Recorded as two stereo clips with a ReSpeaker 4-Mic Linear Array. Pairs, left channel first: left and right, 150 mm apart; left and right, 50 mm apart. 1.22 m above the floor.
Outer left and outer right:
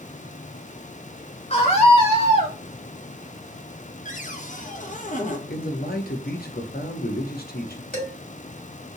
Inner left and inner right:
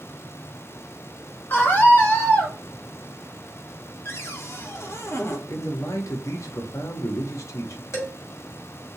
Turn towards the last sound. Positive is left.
turn(degrees=65)  # may be behind; listen again after turning